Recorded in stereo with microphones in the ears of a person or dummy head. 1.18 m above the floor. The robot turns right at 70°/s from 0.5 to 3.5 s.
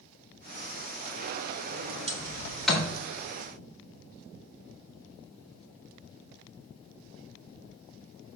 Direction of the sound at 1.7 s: 65° right (ahead or behind).